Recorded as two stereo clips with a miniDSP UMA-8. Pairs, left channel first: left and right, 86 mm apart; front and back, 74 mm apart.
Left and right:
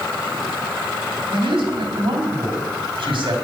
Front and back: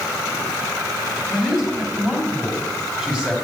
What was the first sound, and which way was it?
A man speaking, 105° right.